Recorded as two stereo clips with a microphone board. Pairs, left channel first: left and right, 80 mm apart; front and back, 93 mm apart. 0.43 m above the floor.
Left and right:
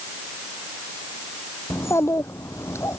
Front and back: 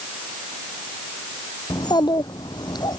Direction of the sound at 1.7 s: 35° left.